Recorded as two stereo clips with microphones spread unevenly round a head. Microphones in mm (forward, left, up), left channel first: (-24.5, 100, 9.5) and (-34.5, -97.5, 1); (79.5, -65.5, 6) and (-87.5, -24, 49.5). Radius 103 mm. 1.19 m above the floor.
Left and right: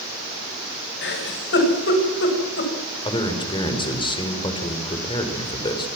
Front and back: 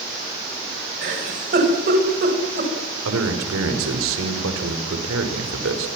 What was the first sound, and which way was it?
A giggle, 120° left.